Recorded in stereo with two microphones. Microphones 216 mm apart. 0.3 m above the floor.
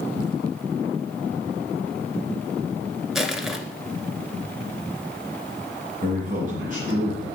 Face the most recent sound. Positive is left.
turn(degrees=-40)  # may be behind; listen again after turning